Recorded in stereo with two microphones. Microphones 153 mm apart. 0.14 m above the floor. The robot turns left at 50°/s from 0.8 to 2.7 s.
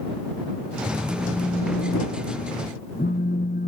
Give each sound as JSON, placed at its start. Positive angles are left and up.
{"t": 1.1, "sound": "a phone buzzing", "azimuth_deg": 170}